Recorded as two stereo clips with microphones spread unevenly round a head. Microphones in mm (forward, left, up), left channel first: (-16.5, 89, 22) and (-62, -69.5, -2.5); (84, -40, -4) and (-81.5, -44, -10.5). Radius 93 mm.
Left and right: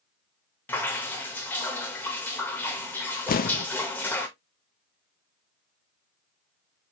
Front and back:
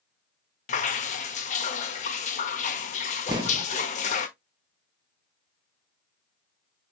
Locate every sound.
0.7 s dripping: 10° left, 0.7 m
3.3 s an explosion: 110° left, 0.6 m